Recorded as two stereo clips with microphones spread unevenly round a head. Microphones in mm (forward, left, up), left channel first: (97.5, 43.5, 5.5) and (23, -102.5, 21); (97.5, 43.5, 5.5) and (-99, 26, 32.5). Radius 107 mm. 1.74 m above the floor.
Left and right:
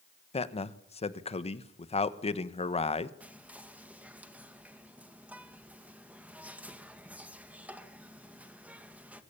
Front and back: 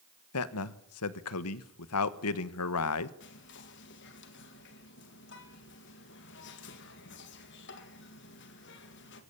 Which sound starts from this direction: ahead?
A man speaking, at 0.3 s.